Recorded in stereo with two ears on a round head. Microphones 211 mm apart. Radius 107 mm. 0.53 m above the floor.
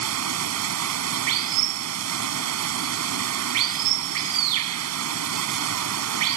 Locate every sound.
0.0 s running water: 70° right (ahead or behind)